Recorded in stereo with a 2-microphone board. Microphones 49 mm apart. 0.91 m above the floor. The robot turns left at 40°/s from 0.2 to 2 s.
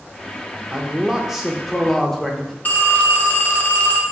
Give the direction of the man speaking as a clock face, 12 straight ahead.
5 o'clock.